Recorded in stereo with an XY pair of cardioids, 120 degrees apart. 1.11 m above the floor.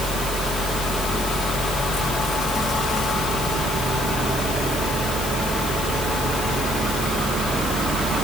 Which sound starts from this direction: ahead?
A fan, at 0.0 s.